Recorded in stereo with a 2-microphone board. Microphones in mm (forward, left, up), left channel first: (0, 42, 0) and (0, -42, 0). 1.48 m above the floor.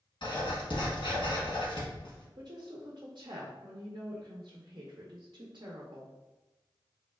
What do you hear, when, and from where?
0.2 s writing: 65° left (ahead or behind), 1.2 m
2.4 s a woman speaking: 55° right (ahead or behind), 0.6 m